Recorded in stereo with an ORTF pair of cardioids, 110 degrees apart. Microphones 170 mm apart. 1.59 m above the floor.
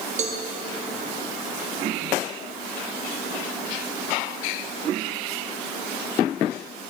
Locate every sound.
0.2 s a cowbell: 40° right, 1.0 m